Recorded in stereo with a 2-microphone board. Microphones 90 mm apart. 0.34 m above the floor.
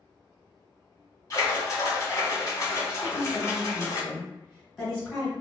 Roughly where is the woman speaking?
Centre.